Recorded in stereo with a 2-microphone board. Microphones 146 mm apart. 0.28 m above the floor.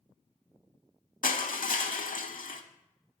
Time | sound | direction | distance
1.2 | crushing | 65° left (ahead or behind) | 0.6 m